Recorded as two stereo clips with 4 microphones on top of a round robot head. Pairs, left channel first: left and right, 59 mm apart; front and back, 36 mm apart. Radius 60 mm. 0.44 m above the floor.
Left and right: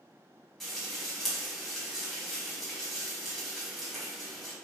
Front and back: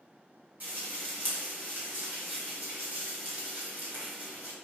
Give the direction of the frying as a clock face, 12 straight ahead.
6 o'clock.